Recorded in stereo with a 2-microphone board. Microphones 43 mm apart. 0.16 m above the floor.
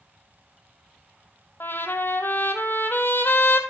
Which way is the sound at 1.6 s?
60° left (ahead or behind).